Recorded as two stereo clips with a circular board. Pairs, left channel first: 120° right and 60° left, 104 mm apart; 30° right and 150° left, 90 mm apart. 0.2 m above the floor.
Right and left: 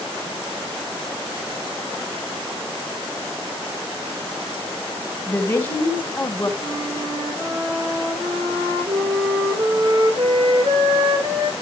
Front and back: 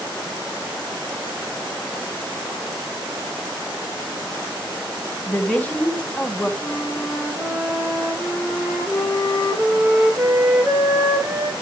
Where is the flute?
70° left, 7.5 m.